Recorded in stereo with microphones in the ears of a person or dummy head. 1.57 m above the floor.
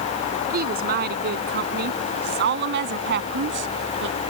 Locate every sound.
0.5 s a woman speaking: 55° right (ahead or behind); by 4.2 s 70° right (ahead or behind)